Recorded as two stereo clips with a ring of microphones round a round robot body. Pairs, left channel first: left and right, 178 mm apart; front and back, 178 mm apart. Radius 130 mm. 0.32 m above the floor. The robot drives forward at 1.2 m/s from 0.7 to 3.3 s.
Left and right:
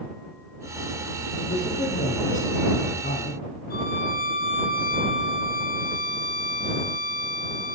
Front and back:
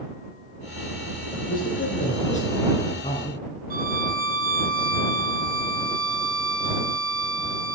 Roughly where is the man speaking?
Ahead left.